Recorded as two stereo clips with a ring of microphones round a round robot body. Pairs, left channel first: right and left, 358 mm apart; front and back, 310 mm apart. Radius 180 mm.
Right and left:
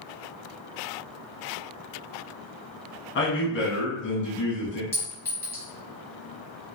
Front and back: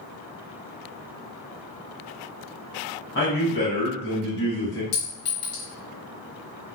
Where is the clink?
5° right, 1.2 m.